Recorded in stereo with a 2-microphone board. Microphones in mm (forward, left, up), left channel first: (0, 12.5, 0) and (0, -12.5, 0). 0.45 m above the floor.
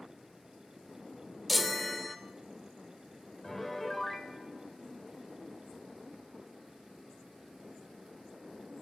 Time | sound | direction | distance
1.5 | a chime | centre (ahead or behind) | 0.6 m
3.4 | a piano | 10° left (ahead or behind) | 0.9 m